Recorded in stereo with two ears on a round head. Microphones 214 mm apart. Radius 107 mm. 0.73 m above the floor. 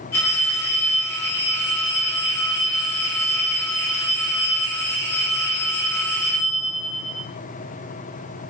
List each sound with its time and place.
0.1 s a phone ringing: 10° left (ahead or behind), 1.7 m